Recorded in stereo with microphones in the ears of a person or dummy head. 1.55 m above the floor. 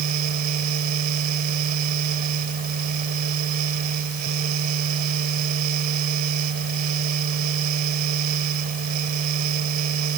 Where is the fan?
45° right (ahead or behind).